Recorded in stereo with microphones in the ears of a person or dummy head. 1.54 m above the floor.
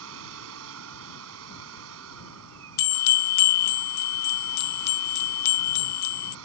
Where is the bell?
55° left (ahead or behind).